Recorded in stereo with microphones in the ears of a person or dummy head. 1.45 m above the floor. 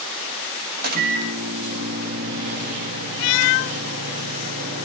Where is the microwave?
45° right (ahead or behind), 1.8 m.